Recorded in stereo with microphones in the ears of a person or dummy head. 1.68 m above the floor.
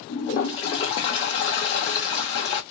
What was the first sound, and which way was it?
A toilet flushing, 30° left (ahead or behind).